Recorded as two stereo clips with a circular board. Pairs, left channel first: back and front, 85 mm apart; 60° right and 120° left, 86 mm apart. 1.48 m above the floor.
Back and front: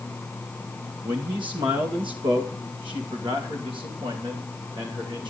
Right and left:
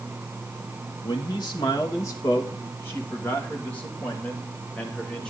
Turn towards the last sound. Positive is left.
turn(degrees=20)